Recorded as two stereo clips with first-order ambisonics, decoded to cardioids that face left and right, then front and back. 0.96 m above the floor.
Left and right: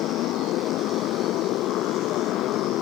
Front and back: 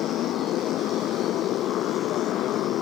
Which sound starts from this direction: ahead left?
A motorcycle, at 0.0 s.